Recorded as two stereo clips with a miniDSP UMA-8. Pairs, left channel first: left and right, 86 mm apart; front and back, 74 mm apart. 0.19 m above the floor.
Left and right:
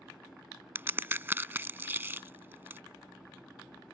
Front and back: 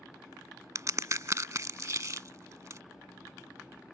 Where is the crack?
150° right.